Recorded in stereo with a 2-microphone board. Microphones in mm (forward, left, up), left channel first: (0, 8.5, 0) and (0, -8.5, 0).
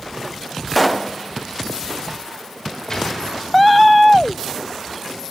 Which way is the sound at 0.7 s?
Centre (ahead or behind).